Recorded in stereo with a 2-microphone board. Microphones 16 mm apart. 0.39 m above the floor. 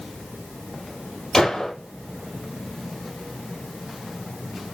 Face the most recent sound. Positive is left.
turn(degrees=35)  # may be behind; listen again after turning